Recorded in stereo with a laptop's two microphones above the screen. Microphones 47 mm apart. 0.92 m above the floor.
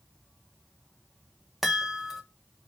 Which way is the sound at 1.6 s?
5° right (ahead or behind).